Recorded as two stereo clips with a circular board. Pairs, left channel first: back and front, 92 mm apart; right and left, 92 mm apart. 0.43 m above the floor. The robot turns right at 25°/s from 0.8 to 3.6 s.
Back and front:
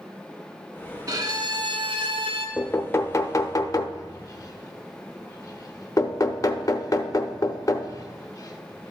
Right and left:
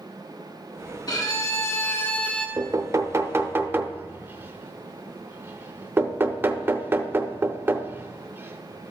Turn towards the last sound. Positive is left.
turn(degrees=145)